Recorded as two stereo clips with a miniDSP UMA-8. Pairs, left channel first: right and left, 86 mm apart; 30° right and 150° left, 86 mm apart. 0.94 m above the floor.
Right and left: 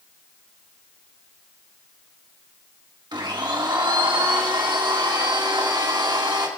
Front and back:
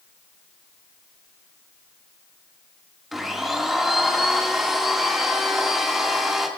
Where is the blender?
65° left, 1.8 m.